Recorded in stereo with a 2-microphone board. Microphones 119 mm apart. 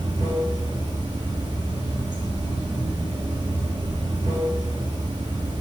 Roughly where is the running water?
Right.